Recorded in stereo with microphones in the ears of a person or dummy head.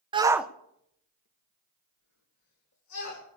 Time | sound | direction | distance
0.1 | a shout | 25° right (ahead or behind) | 0.8 m